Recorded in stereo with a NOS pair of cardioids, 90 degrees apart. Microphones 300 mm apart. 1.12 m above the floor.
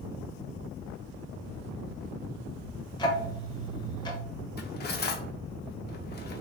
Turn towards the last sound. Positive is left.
turn(degrees=35)